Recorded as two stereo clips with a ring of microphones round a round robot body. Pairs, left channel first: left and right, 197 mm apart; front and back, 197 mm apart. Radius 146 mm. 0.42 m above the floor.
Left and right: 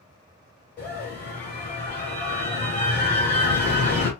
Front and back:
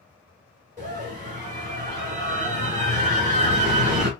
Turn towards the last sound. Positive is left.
turn(degrees=145)